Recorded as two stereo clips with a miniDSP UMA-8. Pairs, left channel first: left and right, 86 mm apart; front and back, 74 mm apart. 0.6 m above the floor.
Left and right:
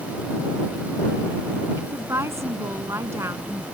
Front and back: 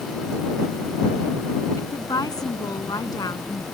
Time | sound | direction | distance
1.8 | a woman speaking | 35° right | ?